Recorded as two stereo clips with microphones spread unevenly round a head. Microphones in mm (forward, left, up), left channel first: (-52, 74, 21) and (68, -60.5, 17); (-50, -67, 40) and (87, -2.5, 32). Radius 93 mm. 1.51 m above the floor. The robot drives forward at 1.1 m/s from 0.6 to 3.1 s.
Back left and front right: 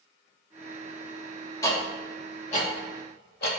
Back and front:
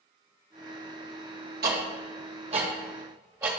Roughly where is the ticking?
Ahead left.